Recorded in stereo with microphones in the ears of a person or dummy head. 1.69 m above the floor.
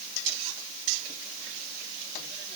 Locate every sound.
Only background noise.